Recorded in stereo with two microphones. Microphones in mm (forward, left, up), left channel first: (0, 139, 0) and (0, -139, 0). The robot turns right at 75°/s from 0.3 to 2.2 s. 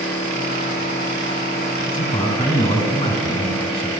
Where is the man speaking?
30° left (ahead or behind), 1.9 m; by 3.9 s 20° left (ahead or behind), 1.9 m.